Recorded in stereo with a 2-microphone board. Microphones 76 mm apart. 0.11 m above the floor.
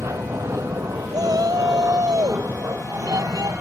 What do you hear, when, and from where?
0.0 s an aircraft: 40° right (ahead or behind)
1.1 s a shout: 55° right (ahead or behind)